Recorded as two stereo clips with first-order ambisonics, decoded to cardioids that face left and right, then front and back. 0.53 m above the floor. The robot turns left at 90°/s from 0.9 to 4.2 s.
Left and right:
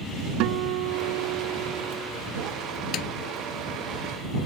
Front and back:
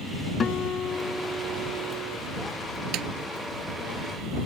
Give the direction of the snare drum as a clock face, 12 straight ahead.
7 o'clock.